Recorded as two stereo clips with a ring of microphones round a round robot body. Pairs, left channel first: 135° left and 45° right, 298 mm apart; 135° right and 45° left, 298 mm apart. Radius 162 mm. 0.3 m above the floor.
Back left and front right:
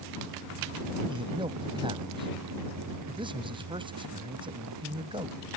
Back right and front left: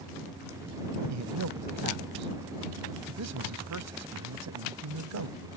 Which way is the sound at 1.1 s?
25° left.